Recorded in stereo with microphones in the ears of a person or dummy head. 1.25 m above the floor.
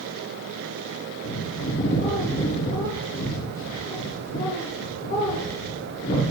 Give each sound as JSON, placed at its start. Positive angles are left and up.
{"t": 1.2, "sound": "a bird", "side_deg": 45, "distance_m": 1.1}